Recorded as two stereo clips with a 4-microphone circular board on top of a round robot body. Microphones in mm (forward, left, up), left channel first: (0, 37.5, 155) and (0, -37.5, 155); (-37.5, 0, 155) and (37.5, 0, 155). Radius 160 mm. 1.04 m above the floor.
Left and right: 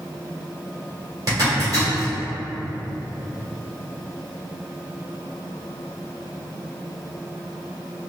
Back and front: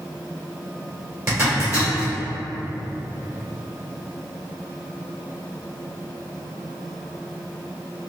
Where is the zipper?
50° right, 1.8 m.